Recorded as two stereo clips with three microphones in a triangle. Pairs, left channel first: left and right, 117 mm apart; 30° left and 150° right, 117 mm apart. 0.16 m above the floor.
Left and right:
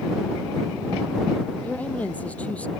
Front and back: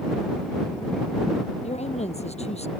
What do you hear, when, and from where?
1.6 s a woman speaking: 10° left